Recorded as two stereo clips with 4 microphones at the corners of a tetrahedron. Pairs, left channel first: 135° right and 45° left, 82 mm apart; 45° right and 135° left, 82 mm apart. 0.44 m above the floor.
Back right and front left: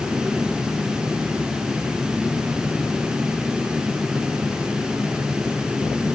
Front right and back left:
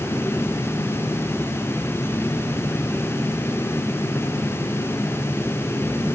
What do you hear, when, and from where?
Only background noise.